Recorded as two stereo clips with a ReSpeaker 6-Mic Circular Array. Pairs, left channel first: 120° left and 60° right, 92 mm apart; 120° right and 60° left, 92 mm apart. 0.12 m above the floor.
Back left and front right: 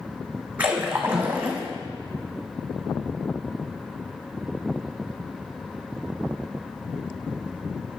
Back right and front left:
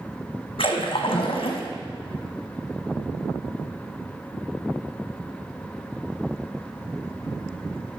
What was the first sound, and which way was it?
A splash, 135° right.